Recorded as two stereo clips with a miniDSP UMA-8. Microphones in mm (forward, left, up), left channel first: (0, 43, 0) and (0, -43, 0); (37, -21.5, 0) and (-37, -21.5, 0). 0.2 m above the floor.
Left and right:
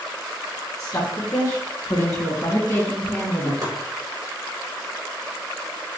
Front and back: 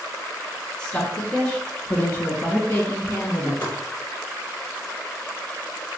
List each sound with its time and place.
0.8 s a woman speaking: 70° left, 2.0 m; by 3.5 s 35° left, 2.5 m
3.6 s chopping: 55° right, 2.5 m